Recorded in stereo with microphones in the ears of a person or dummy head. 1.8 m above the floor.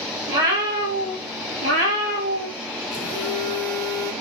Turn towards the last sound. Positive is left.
turn(degrees=5)  # may be behind; listen again after turning